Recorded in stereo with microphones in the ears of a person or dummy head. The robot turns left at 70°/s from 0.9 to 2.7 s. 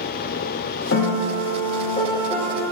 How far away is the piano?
About 0.9 m.